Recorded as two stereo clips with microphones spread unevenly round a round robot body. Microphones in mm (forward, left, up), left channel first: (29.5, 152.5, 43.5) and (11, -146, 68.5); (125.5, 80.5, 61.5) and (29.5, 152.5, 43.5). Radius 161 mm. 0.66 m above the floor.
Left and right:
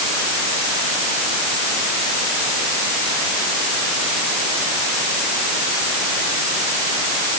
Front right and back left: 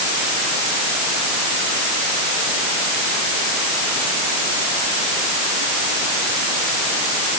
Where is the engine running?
I don't hear an engine running.